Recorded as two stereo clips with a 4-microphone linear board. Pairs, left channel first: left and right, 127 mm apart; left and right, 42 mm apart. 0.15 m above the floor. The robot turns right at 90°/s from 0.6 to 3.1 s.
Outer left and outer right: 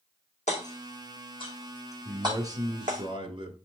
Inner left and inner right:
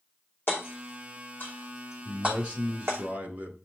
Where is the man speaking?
175° right, 1.9 m; by 3.6 s 80° right, 1.9 m.